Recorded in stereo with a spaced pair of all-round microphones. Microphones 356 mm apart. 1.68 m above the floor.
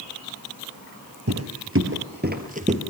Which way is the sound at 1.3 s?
40° right (ahead or behind).